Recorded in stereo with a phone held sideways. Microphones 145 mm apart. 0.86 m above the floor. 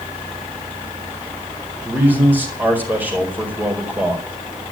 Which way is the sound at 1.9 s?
10° right (ahead or behind).